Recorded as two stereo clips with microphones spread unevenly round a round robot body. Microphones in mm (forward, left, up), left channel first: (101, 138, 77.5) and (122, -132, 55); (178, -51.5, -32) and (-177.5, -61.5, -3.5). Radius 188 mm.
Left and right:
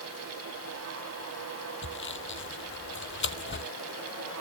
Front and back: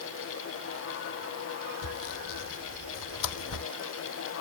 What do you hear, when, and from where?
1.8 s sawing: 45° left